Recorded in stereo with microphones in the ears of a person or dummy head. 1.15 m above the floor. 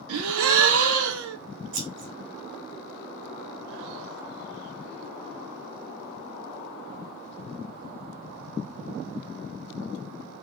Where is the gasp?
80° right, 0.7 m.